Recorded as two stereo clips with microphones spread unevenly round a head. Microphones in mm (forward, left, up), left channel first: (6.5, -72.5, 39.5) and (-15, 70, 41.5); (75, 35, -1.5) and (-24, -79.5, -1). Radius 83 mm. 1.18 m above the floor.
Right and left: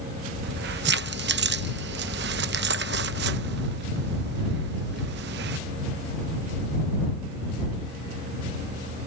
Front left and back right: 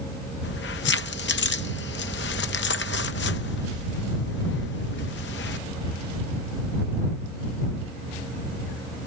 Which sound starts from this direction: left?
Keys jangling, at 0.4 s.